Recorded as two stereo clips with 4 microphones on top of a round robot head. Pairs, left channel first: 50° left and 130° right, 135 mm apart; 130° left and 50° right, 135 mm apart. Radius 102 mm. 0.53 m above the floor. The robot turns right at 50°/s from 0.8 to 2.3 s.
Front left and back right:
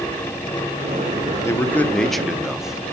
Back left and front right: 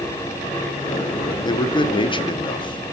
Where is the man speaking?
105° left, 0.8 m; by 3.0 s 145° left, 0.8 m.